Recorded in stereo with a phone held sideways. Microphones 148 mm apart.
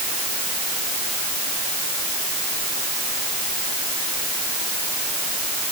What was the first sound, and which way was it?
Only background noise.